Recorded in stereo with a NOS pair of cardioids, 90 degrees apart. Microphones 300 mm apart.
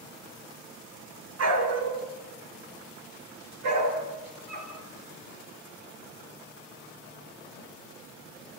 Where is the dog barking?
55° right, 6.5 m; by 4.7 s 80° right, 9 m.